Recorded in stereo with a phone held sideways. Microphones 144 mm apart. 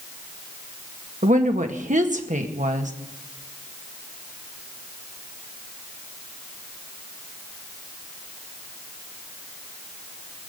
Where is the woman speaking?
60° right (ahead or behind), 1.9 m.